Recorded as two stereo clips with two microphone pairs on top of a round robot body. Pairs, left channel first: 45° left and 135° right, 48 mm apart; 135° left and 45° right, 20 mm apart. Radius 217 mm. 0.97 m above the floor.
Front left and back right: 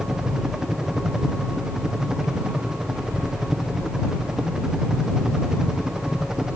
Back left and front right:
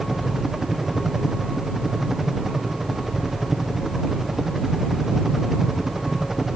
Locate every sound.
0.0 s a helicopter: 85° right